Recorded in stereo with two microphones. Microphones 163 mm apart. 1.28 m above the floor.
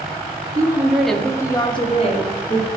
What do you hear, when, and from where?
0.6 s a woman speaking: 20° right (ahead or behind), 1.0 m; by 2.7 s 50° left (ahead or behind), 1.6 m